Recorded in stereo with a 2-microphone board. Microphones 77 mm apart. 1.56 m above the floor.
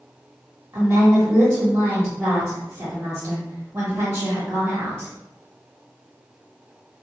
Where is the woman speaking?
40° right (ahead or behind), 1.5 m.